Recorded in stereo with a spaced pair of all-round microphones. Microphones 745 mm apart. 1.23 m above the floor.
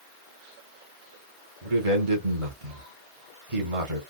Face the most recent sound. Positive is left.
turn(degrees=-45)  # may be behind; listen again after turning